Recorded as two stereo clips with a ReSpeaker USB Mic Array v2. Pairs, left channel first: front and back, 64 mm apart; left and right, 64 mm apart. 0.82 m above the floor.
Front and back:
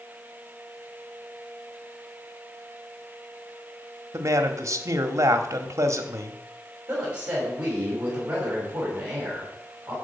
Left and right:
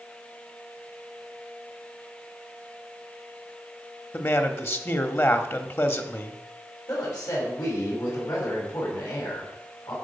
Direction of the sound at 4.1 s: 140° left.